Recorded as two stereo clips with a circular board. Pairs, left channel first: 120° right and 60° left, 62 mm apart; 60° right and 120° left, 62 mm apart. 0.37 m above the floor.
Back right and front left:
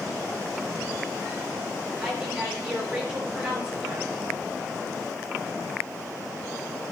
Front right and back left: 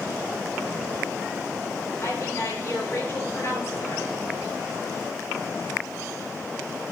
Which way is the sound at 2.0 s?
10° right.